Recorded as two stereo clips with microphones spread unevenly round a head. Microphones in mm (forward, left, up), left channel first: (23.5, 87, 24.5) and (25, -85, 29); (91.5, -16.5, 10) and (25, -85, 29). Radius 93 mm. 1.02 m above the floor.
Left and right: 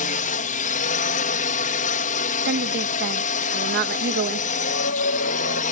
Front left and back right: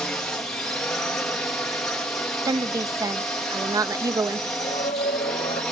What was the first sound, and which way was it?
A drone, 125° left.